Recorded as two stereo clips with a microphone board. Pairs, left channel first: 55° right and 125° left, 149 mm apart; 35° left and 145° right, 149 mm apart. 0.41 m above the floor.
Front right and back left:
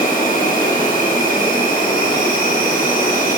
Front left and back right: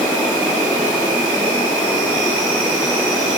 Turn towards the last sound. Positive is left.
turn(degrees=-60)